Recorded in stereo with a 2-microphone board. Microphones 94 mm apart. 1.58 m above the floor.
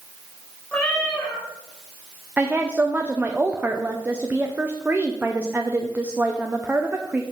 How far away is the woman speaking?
About 0.7 m.